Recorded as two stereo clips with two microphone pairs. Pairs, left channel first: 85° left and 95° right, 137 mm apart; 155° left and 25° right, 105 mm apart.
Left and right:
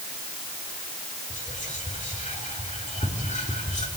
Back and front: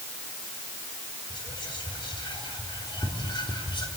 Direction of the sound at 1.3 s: 115° left.